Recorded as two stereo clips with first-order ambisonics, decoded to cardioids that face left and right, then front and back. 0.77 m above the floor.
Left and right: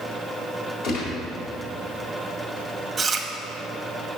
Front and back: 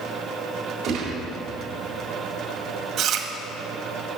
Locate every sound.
0.8 s a gunshot: 130° left, 3.5 m
3.0 s chewing: 165° right, 1.1 m